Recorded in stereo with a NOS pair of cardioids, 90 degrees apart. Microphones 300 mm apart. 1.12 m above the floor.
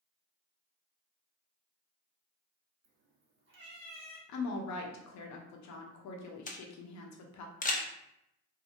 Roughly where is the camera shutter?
Ahead left.